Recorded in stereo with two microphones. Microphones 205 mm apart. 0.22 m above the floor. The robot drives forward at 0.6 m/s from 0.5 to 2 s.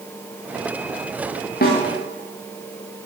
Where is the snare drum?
50° left (ahead or behind), 7.5 m.